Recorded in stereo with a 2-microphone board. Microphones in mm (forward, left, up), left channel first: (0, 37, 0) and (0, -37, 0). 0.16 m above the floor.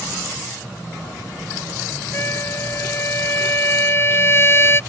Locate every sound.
2.1 s a trumpet: 35° left (ahead or behind)